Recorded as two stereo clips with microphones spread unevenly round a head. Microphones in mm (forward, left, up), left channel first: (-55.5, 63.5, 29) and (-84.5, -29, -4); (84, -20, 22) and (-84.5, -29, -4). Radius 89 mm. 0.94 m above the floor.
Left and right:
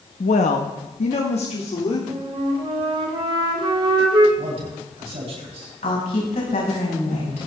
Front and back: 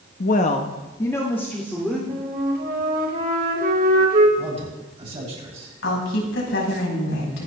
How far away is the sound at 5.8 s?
About 6 m.